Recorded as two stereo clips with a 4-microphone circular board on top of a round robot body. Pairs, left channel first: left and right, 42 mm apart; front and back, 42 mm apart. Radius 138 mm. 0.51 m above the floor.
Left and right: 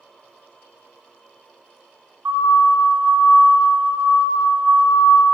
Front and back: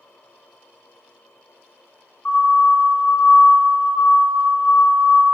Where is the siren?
55° right, 8 m.